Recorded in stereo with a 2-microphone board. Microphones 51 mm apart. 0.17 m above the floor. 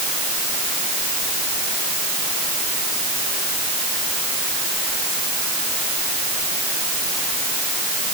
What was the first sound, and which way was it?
Only background noise.